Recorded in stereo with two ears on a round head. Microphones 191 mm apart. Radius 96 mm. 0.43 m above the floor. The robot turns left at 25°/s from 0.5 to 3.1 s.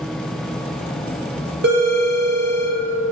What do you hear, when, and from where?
1.6 s a phone ringing: 50° right (ahead or behind), 1.4 m; by 2.8 s 30° right (ahead or behind), 1.4 m